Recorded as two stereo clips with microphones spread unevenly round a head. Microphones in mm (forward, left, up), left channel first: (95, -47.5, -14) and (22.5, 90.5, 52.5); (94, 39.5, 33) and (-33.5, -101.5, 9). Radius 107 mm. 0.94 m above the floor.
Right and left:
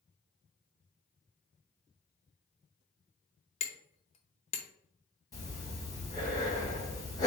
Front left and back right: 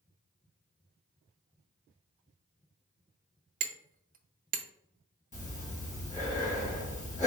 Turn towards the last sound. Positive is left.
turn(degrees=-5)